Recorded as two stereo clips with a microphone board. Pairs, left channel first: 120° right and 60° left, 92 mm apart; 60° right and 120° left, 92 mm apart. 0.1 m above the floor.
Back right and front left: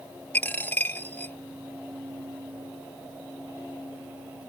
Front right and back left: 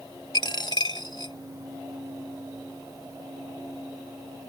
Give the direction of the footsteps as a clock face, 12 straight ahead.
No footsteps in this recording.